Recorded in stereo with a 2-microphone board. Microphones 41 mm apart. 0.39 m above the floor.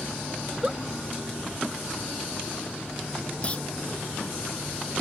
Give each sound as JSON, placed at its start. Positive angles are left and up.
{"t": 0.4, "sound": "a giggle", "side_deg": -20}
{"t": 3.4, "sound": "a clunk", "side_deg": 30}